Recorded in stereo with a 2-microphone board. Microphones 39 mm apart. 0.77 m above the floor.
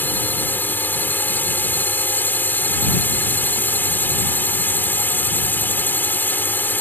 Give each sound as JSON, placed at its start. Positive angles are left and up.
{"t": 0.0, "sound": "a drone", "side_deg": 60}